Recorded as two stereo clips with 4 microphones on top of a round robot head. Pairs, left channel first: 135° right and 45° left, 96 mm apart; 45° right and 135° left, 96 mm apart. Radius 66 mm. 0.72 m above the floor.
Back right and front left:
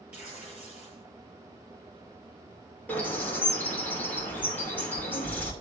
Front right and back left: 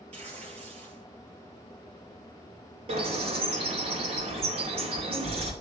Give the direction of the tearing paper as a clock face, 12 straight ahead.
8 o'clock.